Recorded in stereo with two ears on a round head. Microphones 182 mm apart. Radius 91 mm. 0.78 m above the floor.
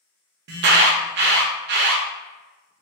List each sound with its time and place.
0.5 s an alarm: 55° right (ahead or behind), 0.6 m